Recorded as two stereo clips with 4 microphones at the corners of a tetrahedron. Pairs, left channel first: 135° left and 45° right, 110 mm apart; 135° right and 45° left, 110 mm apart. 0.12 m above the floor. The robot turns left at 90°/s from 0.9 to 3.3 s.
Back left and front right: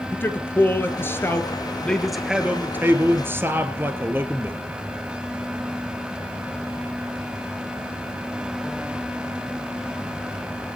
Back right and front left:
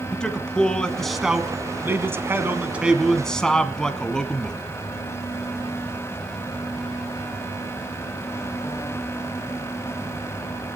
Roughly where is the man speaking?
Behind left.